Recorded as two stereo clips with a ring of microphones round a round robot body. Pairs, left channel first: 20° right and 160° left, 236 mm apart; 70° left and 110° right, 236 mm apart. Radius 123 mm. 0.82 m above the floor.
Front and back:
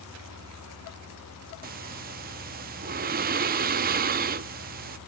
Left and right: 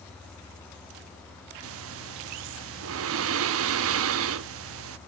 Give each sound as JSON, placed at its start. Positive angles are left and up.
{"t": 1.6, "sound": "breathing", "azimuth_deg": -145, "distance_m": 0.6}